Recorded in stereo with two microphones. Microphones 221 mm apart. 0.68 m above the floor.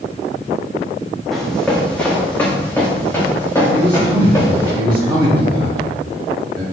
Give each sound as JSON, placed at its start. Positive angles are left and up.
{"t": 1.3, "sound": "running footsteps", "side_deg": 0, "distance_m": 3.0}
{"t": 3.7, "sound": "a man speaking", "side_deg": -20, "distance_m": 3.0}